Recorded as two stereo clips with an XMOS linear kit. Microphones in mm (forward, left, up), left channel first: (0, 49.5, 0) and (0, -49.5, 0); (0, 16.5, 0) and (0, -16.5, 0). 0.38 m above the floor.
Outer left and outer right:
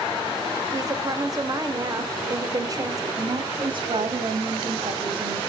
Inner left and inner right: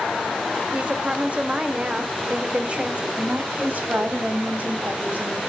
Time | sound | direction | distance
0.7 | a woman speaking | 40° right (ahead or behind) | 0.9 m
3.2 | a woman speaking | 55° right (ahead or behind) | 2.5 m